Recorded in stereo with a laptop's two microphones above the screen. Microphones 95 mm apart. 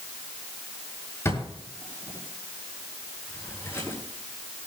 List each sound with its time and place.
1.2 s a drawer: 30° left (ahead or behind), 6.5 m